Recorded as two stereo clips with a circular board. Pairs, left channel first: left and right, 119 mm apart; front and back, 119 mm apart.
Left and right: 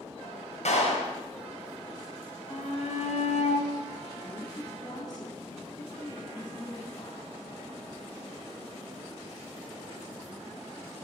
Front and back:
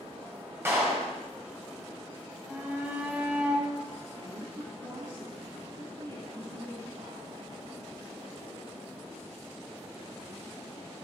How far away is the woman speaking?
About 2.5 m.